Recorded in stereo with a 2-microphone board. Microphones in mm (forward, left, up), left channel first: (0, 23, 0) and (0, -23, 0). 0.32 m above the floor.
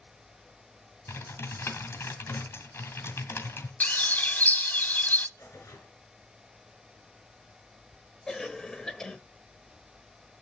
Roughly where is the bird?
Left.